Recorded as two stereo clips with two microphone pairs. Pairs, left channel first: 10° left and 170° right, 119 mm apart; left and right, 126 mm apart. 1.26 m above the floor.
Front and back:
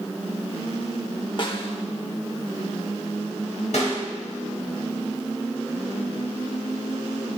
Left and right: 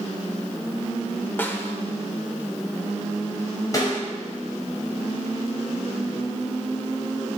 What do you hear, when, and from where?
1.4 s a snare drum: 25° left, 1.2 m
3.7 s a snare drum: 30° left, 5 m